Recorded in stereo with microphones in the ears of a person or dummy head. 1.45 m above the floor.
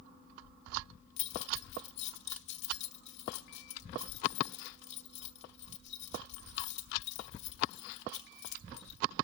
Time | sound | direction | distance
1.2 | keys jangling | 65° left (ahead or behind) | 1.3 m